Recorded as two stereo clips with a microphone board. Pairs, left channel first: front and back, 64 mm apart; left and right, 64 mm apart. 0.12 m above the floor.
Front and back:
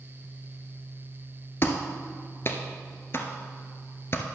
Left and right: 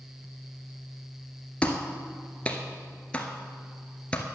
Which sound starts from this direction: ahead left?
A clap, at 1.6 s.